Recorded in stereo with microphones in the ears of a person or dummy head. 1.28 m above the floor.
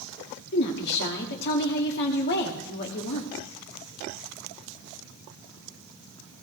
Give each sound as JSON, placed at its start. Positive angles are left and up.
{"t": 0.5, "sound": "a woman speaking", "side_deg": 55, "distance_m": 2.0}